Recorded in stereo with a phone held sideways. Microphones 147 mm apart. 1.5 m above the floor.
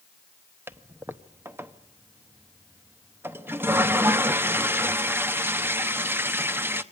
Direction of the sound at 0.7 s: 15° right (ahead or behind).